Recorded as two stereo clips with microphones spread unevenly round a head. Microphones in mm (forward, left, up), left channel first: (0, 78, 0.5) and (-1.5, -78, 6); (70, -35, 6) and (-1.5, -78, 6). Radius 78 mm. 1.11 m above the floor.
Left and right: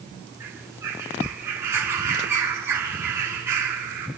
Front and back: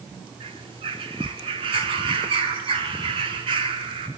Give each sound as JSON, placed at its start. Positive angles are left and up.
{"t": 0.4, "sound": "a bird", "azimuth_deg": -165, "distance_m": 6.5}